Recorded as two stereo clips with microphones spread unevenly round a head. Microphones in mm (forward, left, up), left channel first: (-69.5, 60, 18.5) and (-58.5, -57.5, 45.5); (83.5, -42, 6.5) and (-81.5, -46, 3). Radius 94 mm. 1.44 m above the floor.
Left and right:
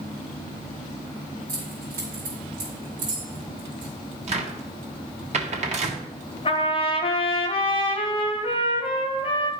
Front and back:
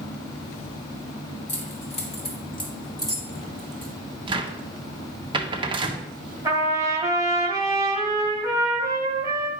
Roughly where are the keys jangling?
Ahead right.